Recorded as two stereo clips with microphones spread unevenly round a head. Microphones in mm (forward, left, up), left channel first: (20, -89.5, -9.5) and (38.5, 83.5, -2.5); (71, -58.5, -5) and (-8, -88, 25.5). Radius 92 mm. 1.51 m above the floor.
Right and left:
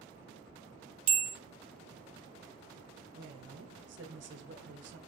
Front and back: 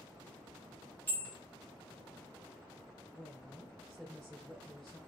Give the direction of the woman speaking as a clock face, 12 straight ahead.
8 o'clock.